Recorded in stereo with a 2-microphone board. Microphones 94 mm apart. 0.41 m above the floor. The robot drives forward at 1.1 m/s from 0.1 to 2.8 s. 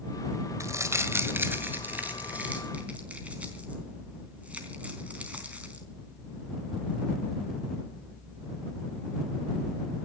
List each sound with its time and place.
0.6 s crumpling: 35° right (ahead or behind), 1.6 m; by 5.8 s 15° right (ahead or behind), 3.5 m